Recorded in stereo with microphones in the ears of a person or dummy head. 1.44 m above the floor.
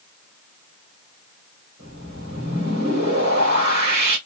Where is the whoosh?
70° right (ahead or behind), 2 m.